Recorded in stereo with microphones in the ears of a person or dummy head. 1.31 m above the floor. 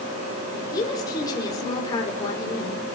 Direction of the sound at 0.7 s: 25° left (ahead or behind).